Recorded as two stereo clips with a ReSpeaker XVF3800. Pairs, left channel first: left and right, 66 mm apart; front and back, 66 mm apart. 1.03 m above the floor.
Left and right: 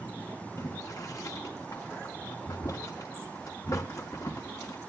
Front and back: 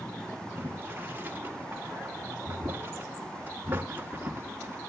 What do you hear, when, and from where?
0.6 s boiling: 120° left, 1.9 m